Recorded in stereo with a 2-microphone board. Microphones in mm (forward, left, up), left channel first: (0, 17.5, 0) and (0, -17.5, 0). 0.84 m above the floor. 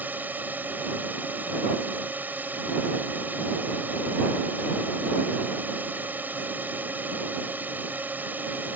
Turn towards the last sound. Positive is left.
turn(degrees=-60)  # may be behind; listen again after turning